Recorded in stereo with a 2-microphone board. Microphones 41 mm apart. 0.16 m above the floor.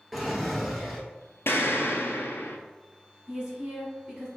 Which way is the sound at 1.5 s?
70° left (ahead or behind).